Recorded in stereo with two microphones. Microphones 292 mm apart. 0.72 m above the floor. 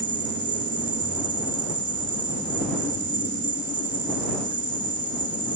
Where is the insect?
35° left (ahead or behind).